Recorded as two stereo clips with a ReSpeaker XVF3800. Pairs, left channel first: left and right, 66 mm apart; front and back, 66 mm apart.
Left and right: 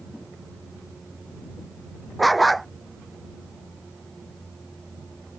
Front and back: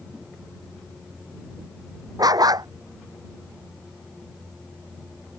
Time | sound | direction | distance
2.2 | a dog barking | straight behind | ?